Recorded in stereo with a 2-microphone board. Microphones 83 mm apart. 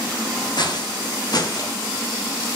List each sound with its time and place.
0.6 s footsteps: 60° left (ahead or behind), 5 m; by 1.8 s 50° left (ahead or behind), 4.5 m